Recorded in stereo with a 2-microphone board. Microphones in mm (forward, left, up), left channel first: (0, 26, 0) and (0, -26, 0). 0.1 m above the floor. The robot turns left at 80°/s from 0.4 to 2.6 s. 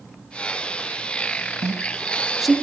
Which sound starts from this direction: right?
A woman speaking, at 1.6 s.